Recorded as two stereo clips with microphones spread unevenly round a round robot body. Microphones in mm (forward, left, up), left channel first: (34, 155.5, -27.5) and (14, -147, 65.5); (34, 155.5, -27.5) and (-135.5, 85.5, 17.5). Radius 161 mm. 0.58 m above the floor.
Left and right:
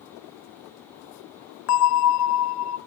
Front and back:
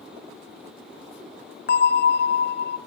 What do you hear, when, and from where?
1.7 s a bell: 50° left, 0.5 m